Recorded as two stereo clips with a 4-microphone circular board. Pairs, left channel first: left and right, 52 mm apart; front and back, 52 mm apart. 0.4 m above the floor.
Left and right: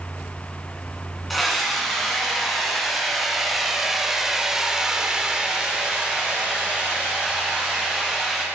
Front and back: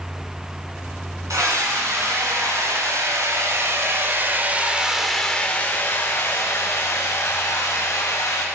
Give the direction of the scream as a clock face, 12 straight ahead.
6 o'clock.